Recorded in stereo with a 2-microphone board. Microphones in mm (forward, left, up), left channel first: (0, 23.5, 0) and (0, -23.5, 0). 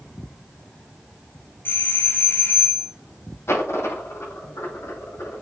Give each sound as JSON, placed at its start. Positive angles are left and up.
{"t": 1.6, "sound": "a doorbell", "side_deg": 55, "distance_m": 3.0}
{"t": 3.5, "sound": "a dropped coin", "side_deg": 75, "distance_m": 5.5}